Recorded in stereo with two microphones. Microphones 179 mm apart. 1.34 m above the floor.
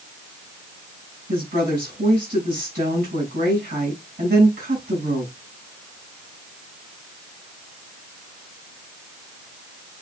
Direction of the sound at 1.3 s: 55° right (ahead or behind).